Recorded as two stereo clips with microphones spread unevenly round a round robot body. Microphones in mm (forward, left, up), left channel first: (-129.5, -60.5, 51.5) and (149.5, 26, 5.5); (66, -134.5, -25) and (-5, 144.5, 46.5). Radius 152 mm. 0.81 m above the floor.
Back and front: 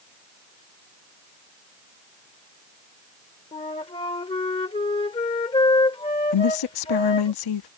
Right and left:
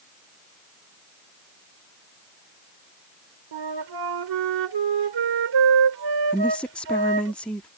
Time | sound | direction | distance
3.5 | a flute | 125° left | ?
6.3 | a woman speaking | 160° right | ?